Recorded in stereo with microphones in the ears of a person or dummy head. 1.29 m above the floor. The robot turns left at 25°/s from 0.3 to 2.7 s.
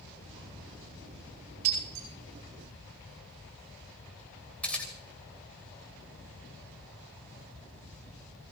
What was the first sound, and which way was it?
Breaking glass, 35° right (ahead or behind).